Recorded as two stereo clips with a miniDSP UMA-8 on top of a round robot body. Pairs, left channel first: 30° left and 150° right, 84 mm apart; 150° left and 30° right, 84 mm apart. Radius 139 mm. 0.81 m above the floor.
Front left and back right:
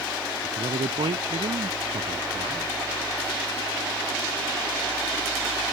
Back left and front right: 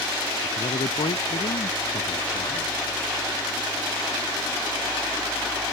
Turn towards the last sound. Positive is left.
turn(degrees=180)